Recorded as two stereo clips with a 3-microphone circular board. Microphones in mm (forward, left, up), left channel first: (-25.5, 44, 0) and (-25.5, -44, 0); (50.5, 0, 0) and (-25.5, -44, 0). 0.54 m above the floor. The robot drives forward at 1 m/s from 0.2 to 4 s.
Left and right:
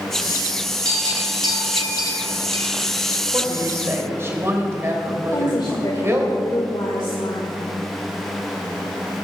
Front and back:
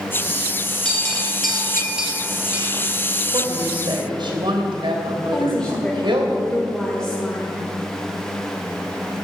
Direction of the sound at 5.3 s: 110° left.